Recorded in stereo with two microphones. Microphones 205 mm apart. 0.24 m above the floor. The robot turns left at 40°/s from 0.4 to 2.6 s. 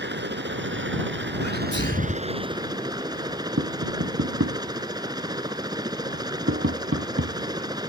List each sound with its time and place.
0.0 s a helicopter: 70° right; by 7.9 s 160° right
1.4 s a sneeze: 105° left; by 2.2 s 75° left
3.6 s tapping: 90° right